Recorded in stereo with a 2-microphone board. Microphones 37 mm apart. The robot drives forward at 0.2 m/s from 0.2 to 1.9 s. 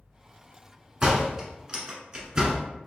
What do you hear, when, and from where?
1.0 s a door slam: 20° right (ahead or behind), 0.9 m